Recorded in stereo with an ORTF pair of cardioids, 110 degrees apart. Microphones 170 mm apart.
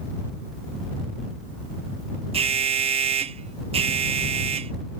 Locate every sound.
2.3 s an alarm: 35° right